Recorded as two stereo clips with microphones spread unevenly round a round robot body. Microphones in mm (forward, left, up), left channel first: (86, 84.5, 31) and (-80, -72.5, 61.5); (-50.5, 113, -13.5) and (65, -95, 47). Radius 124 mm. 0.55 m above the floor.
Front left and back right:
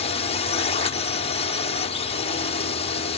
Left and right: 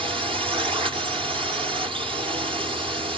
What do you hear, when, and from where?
0.0 s a drone: 15° left